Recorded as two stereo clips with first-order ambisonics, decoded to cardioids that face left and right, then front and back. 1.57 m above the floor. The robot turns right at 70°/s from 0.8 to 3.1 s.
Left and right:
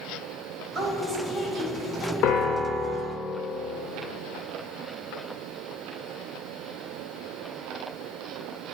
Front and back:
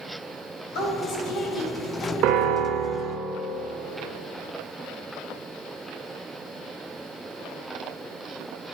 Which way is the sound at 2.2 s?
135° left.